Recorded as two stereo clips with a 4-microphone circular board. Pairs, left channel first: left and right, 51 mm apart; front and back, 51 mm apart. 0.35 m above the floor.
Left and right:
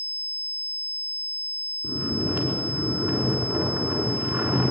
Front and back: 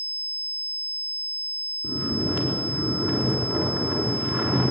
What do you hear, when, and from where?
1.8 s snoring: 150° right, 4 m